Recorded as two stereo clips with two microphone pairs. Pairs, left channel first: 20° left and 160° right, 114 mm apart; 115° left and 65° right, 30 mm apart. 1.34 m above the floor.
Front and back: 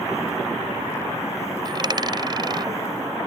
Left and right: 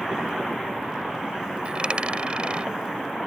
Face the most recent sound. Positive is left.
turn(degrees=-115)